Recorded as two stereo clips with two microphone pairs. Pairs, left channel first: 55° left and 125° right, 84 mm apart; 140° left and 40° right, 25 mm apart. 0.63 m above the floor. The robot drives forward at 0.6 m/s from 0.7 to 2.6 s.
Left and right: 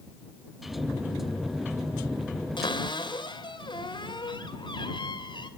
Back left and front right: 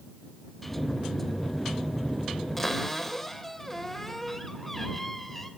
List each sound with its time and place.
2.6 s a cupboard door: 65° left, 3 m